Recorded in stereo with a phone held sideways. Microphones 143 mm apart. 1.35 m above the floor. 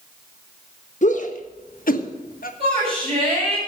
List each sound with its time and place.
1.0 s a shout: 60° left (ahead or behind), 1.5 m; by 2.5 s 85° left, 1.3 m
2.6 s a shout: 45° right (ahead or behind), 6.5 m